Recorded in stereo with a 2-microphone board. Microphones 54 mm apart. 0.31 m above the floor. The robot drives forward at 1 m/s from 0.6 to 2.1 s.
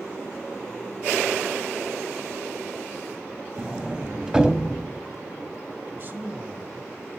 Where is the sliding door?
15° right (ahead or behind), 0.7 m.